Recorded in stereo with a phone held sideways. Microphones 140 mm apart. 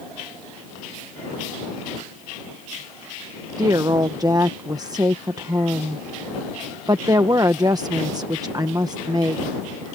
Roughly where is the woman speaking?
Right.